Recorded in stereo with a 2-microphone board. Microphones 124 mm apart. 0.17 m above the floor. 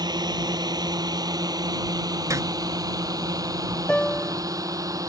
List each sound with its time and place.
0.0 s a drone: 35° right (ahead or behind); by 5.1 s 30° right (ahead or behind)
2.3 s a zipper: 25° right (ahead or behind)
3.9 s a piano: 10° left (ahead or behind)